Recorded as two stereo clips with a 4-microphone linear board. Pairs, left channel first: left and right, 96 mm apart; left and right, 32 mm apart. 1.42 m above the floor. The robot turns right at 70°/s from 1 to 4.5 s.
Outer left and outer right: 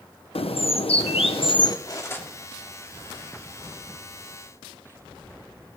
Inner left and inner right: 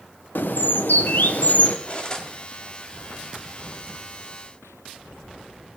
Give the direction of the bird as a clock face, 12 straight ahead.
9 o'clock.